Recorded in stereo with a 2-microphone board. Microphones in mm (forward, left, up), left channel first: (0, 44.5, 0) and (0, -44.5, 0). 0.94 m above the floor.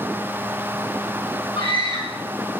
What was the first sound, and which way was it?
A scream, 70° left (ahead or behind).